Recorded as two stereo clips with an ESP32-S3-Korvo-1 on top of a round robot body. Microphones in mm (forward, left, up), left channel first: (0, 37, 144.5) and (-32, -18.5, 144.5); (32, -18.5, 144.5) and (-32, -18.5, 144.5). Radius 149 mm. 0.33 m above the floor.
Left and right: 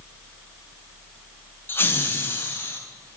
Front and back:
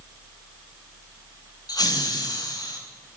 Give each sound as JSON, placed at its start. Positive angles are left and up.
{"t": 1.7, "sound": "laughter", "azimuth_deg": 5, "distance_m": 3.5}